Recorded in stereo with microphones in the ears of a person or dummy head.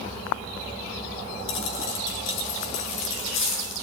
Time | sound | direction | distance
1.5 | a dropped coin | 75° left (ahead or behind) | 4.5 m